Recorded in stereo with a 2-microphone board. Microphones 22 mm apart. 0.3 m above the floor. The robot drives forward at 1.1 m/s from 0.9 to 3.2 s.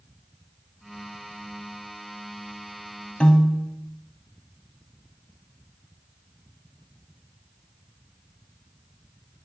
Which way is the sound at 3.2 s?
50° left (ahead or behind).